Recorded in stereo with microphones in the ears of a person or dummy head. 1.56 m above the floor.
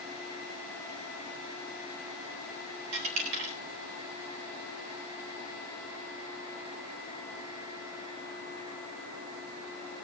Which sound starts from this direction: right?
A dropped coin, at 2.9 s.